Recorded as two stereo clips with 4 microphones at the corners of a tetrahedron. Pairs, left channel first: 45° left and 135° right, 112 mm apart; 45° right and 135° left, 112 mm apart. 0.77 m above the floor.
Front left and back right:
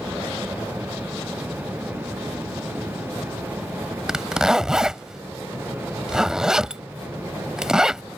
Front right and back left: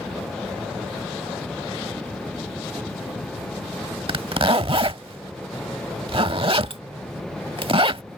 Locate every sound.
4.1 s a zipper: 140° left